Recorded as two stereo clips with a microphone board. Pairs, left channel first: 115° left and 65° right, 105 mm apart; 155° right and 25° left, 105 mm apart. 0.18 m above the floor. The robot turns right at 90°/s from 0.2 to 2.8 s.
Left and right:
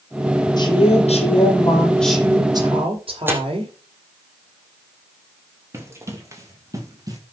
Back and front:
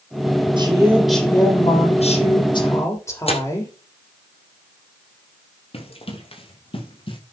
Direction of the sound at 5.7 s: 130° right.